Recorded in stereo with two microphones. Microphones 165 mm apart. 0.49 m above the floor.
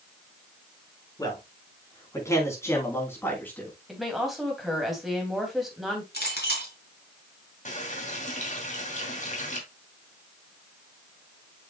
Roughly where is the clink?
Left.